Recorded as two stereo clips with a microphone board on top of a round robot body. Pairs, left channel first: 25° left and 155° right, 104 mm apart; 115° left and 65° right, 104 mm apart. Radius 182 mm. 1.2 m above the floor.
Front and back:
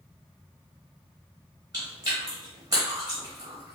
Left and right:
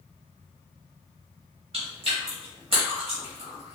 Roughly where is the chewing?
Right.